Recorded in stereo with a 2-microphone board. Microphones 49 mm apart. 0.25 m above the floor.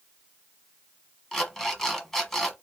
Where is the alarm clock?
10° left (ahead or behind), 1.2 m.